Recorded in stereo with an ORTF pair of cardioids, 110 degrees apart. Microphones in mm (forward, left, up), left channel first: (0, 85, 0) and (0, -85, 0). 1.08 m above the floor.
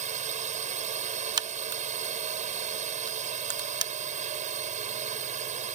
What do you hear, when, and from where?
0.0 s a drone: 45° right
1.4 s a crack: 25° right